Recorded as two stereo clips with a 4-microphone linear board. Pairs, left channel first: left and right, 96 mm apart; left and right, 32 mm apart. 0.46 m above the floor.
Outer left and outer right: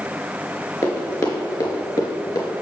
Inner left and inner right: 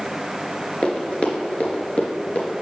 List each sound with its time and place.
0.8 s running footsteps: 35° left (ahead or behind), 3 m; by 2.5 s 40° left (ahead or behind), 4 m